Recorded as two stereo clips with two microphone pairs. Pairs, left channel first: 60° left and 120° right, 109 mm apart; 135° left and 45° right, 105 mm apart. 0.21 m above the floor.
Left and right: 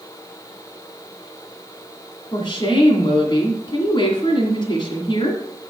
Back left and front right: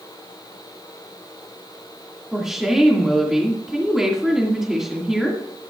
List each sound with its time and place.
2.3 s a woman speaking: 40° left, 2.0 m